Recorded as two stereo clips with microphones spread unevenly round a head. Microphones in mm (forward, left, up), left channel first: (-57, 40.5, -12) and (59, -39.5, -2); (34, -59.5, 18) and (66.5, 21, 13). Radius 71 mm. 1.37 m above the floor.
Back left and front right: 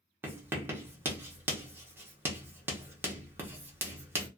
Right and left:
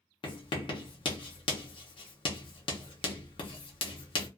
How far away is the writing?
About 0.7 m.